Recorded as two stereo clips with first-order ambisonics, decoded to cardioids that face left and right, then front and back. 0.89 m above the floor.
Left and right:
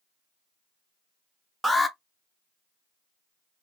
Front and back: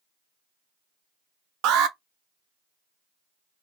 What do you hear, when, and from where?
1.6 s an alarm: 175° right, 0.5 m